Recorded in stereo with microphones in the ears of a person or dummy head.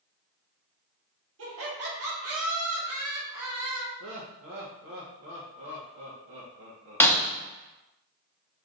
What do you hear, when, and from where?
1.4 s laughter: 65° right (ahead or behind), 1.3 m; by 3.9 s 60° right (ahead or behind), 2.5 m
4.0 s laughter: 60° right (ahead or behind), 0.8 m
7.0 s breaking glass: 10° left (ahead or behind), 0.6 m